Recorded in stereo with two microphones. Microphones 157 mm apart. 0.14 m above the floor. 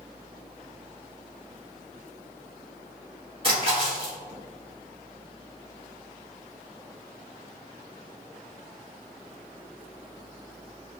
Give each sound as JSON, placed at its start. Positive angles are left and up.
{"t": 3.4, "sound": "a splash", "side_deg": -35, "distance_m": 1.3}